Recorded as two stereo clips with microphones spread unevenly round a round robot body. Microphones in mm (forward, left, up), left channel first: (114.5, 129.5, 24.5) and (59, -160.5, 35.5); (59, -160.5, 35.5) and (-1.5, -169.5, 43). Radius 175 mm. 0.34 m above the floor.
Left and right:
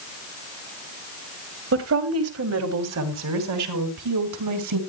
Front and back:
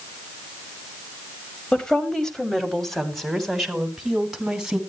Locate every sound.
1.7 s a woman speaking: 65° right, 2 m; by 4.8 s 85° right, 3.5 m